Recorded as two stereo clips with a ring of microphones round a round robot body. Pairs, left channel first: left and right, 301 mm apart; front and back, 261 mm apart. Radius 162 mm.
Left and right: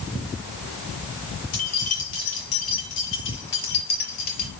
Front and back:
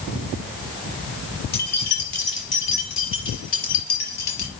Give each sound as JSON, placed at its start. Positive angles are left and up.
{"t": 1.5, "sound": "keys jangling", "azimuth_deg": 50, "distance_m": 5.5}